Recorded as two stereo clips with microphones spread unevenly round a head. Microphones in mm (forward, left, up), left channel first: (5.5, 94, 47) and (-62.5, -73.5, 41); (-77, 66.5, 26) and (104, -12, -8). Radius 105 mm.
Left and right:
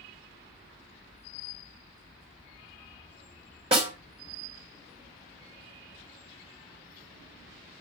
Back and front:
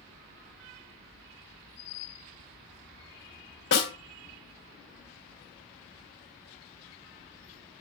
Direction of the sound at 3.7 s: 170° right.